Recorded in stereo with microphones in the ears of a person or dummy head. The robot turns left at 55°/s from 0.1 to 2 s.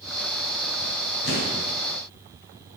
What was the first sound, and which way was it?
An explosion, 65° left (ahead or behind).